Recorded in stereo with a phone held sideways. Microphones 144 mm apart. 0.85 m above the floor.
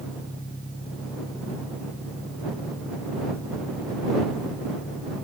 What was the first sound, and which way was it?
An engine running, 55° left (ahead or behind).